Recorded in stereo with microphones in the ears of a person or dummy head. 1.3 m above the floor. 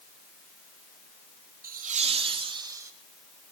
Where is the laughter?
40° right (ahead or behind), 0.9 m; by 2.9 s 10° right (ahead or behind), 1.4 m.